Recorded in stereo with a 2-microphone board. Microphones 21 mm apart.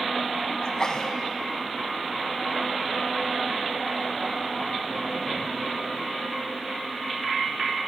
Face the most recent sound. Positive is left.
turn(degrees=35)  # may be behind; listen again after turning